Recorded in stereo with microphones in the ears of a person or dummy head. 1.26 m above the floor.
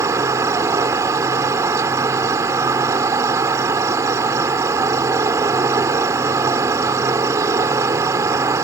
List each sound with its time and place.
0.0 s an insect: 20° right (ahead or behind)